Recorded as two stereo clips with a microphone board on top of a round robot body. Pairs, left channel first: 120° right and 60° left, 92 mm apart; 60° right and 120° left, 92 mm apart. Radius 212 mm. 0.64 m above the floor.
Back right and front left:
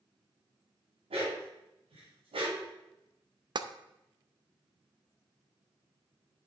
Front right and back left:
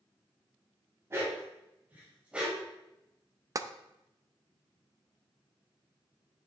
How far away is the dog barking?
About 2.5 m.